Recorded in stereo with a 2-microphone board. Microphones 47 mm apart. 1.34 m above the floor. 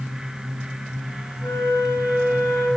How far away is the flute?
About 9 m.